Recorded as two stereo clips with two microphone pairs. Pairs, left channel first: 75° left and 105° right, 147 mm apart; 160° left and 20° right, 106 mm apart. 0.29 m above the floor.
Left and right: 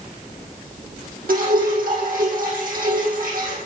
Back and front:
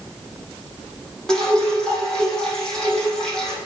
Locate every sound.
1.3 s dripping: 120° right, 7 m